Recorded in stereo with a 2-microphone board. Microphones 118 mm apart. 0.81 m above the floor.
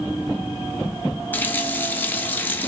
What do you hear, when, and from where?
1.3 s a running tap: 15° left (ahead or behind), 1.1 m